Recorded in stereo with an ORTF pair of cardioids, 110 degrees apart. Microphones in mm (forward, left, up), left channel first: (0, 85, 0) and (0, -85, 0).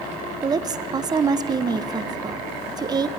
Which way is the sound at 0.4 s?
25° right.